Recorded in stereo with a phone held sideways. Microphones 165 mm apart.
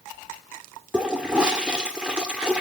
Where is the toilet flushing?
5° right (ahead or behind), 1.7 m.